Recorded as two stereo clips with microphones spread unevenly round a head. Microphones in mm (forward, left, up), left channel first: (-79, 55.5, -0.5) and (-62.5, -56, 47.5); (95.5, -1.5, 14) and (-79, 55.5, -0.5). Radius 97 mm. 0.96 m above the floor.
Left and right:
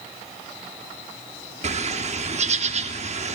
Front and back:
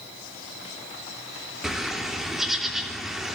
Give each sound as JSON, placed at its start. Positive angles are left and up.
{"t": 1.6, "sound": "a bird", "azimuth_deg": -110, "distance_m": 3.0}